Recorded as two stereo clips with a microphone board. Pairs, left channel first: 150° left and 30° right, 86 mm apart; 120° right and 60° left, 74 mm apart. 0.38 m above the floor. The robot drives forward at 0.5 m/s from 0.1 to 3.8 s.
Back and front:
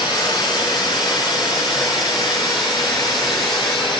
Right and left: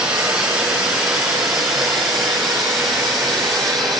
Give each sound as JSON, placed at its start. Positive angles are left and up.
{"t": 0.0, "sound": "running water", "azimuth_deg": 140, "distance_m": 4.0}